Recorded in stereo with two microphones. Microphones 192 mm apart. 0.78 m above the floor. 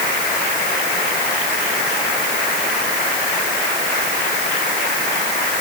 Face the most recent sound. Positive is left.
No sound to turn to.